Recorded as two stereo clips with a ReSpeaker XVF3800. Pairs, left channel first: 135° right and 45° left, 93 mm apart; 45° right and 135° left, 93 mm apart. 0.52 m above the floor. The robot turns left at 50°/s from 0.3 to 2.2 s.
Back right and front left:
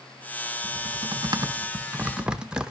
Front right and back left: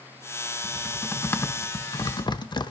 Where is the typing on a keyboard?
45° left, 0.9 m; by 2.7 s 35° right, 0.9 m.